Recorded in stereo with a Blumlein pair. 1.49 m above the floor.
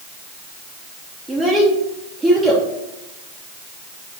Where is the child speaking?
10° right, 1.2 m.